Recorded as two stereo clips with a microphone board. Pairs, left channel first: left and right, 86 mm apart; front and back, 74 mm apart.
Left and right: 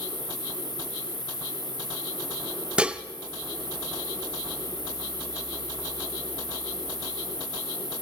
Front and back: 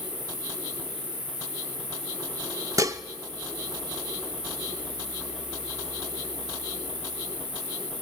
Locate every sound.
0.0 s an insect: 165° left, 5 m
2.8 s dishes clattering: 160° right, 0.6 m